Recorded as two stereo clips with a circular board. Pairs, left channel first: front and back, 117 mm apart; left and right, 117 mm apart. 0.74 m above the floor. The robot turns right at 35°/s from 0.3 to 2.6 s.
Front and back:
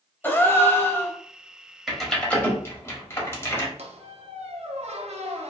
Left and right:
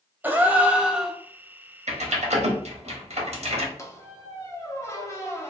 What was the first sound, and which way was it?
A gasp, 40° right.